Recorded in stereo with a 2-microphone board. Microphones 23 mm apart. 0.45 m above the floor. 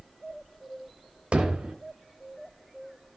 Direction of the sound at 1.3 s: 70° right (ahead or behind).